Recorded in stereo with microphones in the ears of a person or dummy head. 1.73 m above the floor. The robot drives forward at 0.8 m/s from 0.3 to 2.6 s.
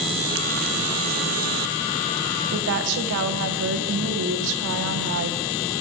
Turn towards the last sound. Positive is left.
turn(degrees=-65)  # may be behind; listen again after turning